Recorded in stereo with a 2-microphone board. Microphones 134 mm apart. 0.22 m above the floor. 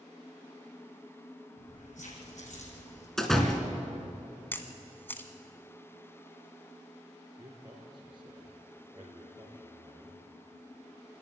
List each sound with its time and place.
1.6 s keys jangling: 75° left (ahead or behind), 5.5 m; by 3.1 s 65° left (ahead or behind), 5.5 m
3.2 s a door slam: 5° left (ahead or behind), 2 m
4.5 s a camera shutter: 15° left (ahead or behind), 1.3 m
7.4 s a man speaking: 35° right (ahead or behind), 4.5 m